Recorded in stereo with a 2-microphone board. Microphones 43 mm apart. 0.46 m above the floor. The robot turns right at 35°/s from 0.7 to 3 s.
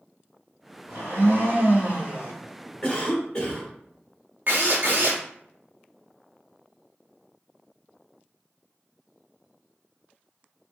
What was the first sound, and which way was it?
A blender, 85° right.